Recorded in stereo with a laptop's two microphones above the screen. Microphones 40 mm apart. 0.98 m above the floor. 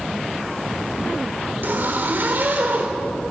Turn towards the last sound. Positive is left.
turn(degrees=-60)  # may be behind; listen again after turning